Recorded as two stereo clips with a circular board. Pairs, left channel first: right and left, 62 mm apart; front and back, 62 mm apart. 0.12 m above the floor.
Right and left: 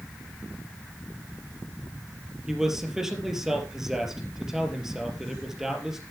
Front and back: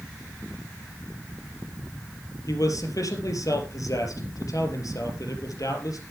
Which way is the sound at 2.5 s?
5° left.